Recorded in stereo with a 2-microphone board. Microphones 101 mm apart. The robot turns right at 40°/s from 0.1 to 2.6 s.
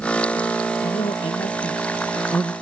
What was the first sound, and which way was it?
A man speaking, 100° left.